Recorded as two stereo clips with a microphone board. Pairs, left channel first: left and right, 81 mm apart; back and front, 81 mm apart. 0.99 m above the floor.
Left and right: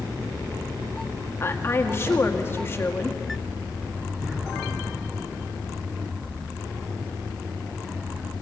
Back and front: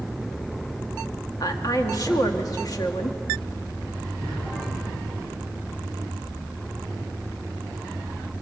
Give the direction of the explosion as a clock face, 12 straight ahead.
6 o'clock.